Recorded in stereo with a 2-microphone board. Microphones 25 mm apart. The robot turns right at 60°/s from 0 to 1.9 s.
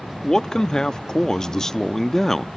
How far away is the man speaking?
About 0.6 m.